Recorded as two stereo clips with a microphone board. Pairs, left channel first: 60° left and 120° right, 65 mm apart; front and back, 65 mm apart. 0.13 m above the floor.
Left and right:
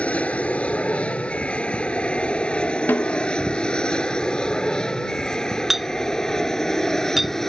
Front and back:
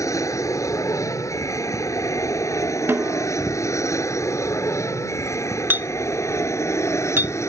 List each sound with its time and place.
0.0 s an aircraft: 5° right; by 7.5 s 25° right
2.9 s a snare drum: 120° left
5.7 s a clink: 155° left